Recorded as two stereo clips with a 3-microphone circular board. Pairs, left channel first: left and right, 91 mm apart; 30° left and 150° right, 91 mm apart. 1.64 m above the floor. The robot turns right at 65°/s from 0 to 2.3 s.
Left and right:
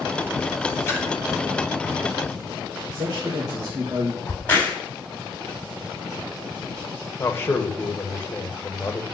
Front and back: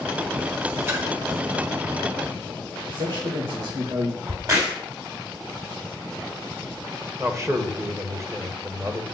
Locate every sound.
0.9 s a splash: 145° left, 3 m; by 1.1 s 160° left, 3 m
2.9 s a man speaking: 130° right, 2.5 m
4.3 s a crack: 160° left, 3.5 m
7.2 s a man speaking: 155° left, 1.5 m